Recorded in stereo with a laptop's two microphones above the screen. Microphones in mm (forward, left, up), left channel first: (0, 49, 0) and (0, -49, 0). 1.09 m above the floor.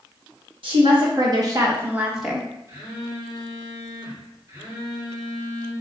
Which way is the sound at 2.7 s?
25° right (ahead or behind).